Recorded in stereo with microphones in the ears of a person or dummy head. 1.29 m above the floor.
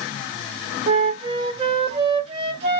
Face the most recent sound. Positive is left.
turn(degrees=-30)  # may be behind; listen again after turning